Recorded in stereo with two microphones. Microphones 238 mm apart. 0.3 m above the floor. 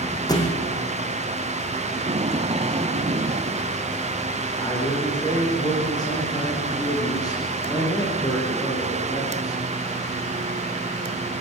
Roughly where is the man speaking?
Centre.